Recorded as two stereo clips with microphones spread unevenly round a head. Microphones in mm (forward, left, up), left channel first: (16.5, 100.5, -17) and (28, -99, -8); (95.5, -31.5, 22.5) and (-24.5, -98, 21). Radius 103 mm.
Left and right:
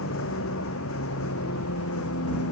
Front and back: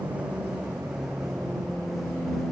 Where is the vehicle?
125° left; by 2.5 s 120° left.